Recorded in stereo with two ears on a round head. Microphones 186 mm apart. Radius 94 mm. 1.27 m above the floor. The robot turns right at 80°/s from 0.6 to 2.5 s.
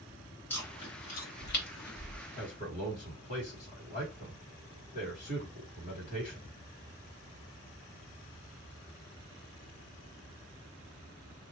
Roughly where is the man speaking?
Left.